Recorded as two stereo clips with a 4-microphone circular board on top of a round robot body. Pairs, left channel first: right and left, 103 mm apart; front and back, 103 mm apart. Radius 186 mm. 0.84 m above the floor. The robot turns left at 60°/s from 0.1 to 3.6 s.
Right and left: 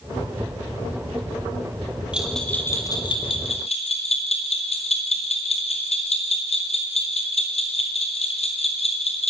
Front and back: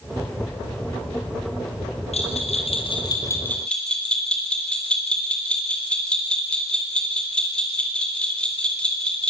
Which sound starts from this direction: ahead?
A bell, at 2.1 s.